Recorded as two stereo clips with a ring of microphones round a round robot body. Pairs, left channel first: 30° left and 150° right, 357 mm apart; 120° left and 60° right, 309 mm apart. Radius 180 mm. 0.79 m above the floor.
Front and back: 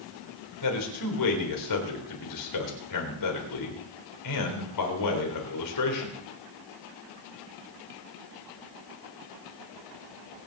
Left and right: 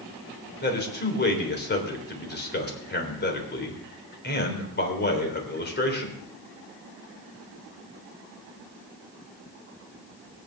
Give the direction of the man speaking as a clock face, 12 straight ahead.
10 o'clock.